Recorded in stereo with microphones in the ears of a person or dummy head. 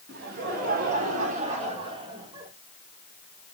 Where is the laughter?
55° right (ahead or behind), 4 m; by 2.5 s 20° right (ahead or behind), 3.5 m.